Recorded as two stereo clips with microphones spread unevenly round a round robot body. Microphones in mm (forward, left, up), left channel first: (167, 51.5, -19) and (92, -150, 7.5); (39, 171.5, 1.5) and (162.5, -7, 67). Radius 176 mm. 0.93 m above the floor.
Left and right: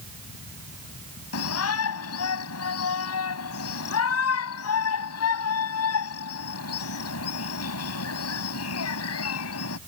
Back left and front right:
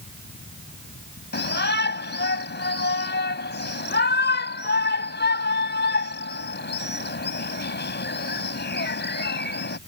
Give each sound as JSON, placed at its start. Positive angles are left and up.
{"t": 1.3, "sound": "a shout", "azimuth_deg": 85}